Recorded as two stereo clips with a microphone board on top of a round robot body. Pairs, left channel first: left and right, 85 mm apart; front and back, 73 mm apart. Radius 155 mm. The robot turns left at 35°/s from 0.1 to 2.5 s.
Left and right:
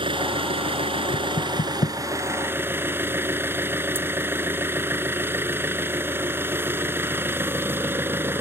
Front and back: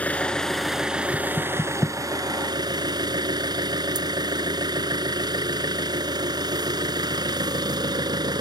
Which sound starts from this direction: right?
An engine running, at 0.0 s.